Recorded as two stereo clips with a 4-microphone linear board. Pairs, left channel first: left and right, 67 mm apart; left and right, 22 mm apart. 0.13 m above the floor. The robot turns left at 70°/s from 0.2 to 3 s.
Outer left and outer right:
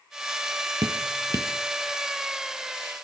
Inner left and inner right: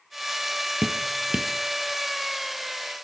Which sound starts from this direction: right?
Dripping, at 0.8 s.